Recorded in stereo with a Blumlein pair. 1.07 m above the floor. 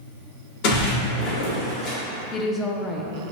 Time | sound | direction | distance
0.6 | a splash | 45° left | 1.6 m
2.3 | a woman speaking | 20° left | 0.7 m